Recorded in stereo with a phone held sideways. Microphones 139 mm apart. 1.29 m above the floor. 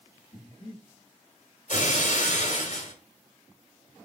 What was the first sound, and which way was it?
Breathing, 40° left (ahead or behind).